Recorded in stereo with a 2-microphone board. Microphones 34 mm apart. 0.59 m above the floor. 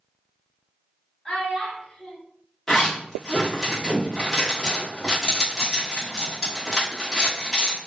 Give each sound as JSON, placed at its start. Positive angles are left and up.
{"t": 1.2, "sound": "a child speaking", "side_deg": 20, "distance_m": 1.5}
{"t": 2.7, "sound": "a zipper", "side_deg": 15, "distance_m": 1.2}